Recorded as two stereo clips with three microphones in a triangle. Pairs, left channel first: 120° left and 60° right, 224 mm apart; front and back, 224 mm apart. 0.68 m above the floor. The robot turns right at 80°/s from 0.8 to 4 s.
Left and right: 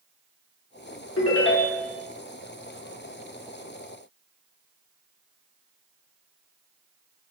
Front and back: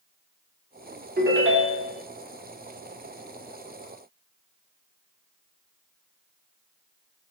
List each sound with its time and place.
1.2 s a ringtone: 130° left, 0.6 m; by 2.0 s 160° right, 0.6 m